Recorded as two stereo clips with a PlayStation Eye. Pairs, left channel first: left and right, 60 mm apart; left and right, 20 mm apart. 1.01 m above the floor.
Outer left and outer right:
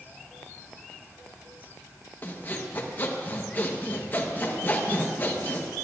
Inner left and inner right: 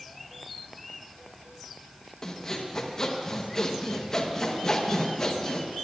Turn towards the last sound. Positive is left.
turn(degrees=30)  # may be behind; listen again after turning